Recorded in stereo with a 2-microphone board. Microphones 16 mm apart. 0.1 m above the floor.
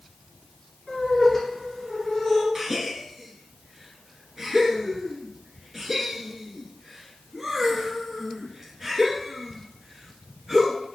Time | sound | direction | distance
0.9 | laughter | 10° left (ahead or behind) | 1.7 m
2.5 | a gasp | 25° right (ahead or behind) | 0.7 m